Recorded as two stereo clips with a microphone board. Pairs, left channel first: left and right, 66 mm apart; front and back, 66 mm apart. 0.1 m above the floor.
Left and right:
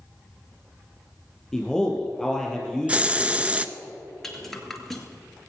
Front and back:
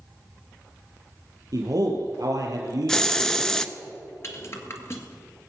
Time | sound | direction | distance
1.5 | a man speaking | 175° left | 3.5 m
2.9 | a hiss | 65° right | 0.5 m
4.2 | a rattle | 5° left | 1.6 m